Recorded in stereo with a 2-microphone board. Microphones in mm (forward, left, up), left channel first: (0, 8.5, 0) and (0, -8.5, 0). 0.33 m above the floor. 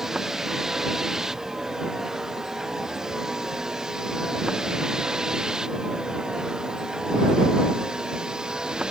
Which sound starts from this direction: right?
A vehicle, at 0.0 s.